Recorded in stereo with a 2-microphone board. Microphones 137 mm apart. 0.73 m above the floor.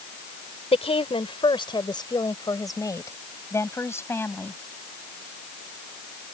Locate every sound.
0.7 s a woman speaking: 50° left (ahead or behind); by 4.6 s 15° left (ahead or behind)